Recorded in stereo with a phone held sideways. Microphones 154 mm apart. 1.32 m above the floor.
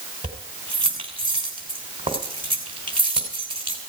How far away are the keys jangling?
About 3 m.